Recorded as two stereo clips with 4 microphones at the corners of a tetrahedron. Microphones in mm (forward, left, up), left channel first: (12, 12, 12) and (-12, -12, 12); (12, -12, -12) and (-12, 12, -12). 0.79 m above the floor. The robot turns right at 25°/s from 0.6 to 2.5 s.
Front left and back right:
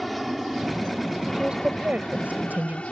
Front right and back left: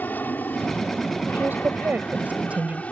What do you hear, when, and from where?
0.0 s an aircraft: 45° right; by 2.9 s 5° right
1.3 s a woman speaking: 155° left; by 2.8 s 175° right